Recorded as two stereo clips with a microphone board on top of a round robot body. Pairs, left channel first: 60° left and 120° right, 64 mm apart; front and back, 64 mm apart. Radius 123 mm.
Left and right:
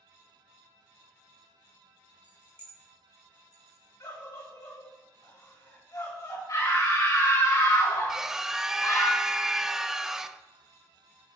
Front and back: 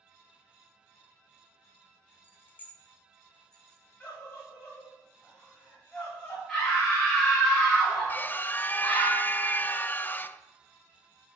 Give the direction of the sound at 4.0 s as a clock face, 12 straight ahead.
10 o'clock.